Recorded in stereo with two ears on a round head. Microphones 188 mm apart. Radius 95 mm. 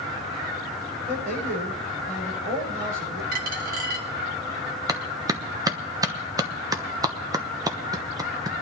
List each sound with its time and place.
1.1 s a man speaking: 45° right (ahead or behind), 9.5 m
3.3 s a dropped coin: 40° right (ahead or behind), 1.3 m
4.9 s a clap: 15° right (ahead or behind), 1.0 m